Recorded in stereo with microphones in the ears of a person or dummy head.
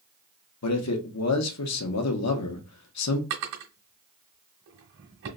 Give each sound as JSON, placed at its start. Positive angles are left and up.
{"t": 0.6, "sound": "a man speaking", "side_deg": 80, "distance_m": 0.9}
{"t": 3.3, "sound": "a drawer", "side_deg": -50, "distance_m": 1.3}